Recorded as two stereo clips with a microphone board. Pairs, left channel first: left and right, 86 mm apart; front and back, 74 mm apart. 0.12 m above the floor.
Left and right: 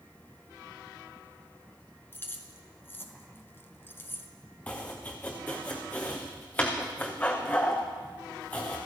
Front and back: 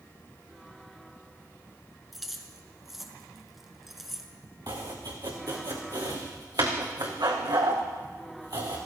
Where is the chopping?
160° left, 3 m.